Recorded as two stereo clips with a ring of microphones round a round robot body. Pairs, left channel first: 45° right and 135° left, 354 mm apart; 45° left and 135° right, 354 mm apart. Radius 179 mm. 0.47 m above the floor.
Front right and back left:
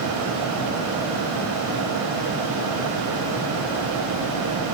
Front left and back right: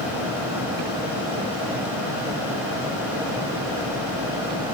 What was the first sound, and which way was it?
Only background noise.